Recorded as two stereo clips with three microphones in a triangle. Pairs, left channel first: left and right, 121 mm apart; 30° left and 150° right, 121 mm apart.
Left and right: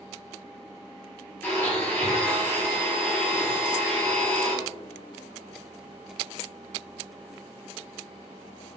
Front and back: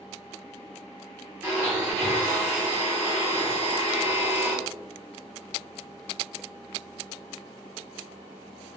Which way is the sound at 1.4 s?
150° left.